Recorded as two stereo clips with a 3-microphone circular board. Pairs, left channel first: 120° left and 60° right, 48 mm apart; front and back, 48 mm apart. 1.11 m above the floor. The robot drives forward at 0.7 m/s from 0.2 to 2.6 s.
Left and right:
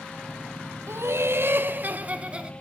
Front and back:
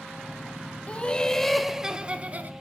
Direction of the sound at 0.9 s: 60° right.